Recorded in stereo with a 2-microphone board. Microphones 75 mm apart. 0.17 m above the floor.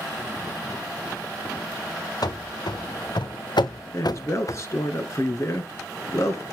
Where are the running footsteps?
65° left (ahead or behind), 1.3 m; by 4.6 s 40° left (ahead or behind), 0.8 m.